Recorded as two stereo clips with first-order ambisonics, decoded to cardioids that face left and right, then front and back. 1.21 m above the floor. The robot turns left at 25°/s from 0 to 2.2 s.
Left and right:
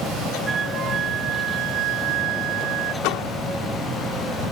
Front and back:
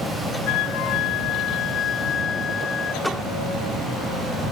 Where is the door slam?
95° left.